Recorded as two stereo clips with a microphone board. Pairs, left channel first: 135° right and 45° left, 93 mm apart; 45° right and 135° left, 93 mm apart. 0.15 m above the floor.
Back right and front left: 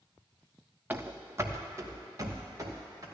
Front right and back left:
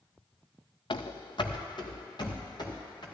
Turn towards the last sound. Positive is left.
turn(degrees=-10)